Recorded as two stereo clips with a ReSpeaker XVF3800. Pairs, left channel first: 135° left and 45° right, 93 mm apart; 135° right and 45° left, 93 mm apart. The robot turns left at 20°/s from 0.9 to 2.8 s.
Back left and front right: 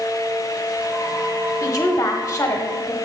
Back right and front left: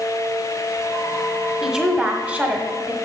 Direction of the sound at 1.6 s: 130° left.